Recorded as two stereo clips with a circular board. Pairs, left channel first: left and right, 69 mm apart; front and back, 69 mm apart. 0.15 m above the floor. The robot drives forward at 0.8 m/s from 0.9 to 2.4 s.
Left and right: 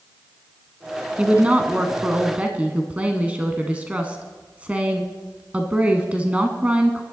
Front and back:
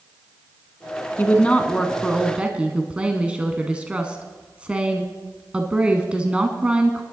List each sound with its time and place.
1.2 s a woman speaking: 35° right, 1.3 m; by 7.0 s 130° right, 1.2 m